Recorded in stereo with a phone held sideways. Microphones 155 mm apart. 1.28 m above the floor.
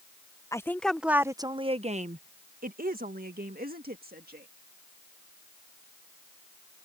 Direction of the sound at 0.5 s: 20° left (ahead or behind).